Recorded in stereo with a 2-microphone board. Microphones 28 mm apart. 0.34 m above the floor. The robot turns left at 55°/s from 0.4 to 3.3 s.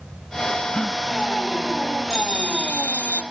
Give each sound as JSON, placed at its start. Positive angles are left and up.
{"t": 0.7, "sound": "a gasp", "side_deg": 20}
{"t": 2.1, "sound": "a bell", "azimuth_deg": 150}